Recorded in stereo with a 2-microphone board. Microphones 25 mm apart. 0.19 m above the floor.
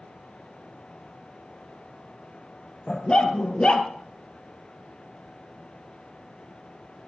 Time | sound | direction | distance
2.9 | a dog barking | 35° left (ahead or behind) | 1.9 m